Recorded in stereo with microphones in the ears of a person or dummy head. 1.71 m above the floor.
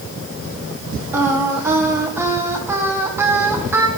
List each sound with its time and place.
1.1 s singing: 15° right (ahead or behind), 1.6 m